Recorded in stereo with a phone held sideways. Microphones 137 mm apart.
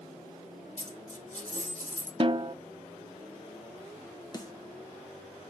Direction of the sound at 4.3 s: 30° left (ahead or behind).